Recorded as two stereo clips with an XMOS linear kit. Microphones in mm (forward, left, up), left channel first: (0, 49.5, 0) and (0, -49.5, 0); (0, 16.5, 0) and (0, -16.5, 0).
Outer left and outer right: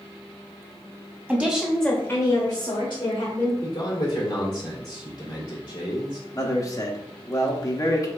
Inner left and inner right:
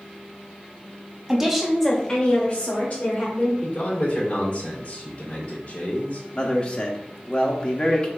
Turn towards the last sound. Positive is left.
turn(degrees=30)  # may be behind; listen again after turning